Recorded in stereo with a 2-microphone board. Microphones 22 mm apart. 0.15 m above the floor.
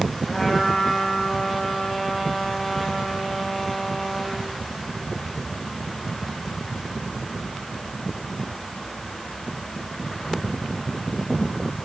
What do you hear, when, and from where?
0.3 s a trumpet: 10° left (ahead or behind), 5 m